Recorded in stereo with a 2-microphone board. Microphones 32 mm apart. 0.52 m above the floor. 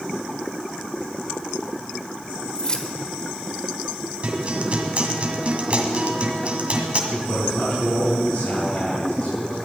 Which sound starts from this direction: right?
A guitar, at 4.2 s.